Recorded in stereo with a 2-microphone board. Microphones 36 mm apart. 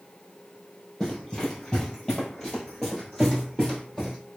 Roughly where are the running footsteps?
Centre.